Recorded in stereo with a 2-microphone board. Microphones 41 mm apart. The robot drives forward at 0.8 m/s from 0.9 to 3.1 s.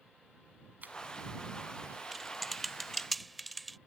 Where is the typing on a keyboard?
Centre (ahead or behind).